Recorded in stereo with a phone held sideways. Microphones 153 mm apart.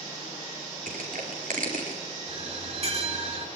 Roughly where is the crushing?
Right.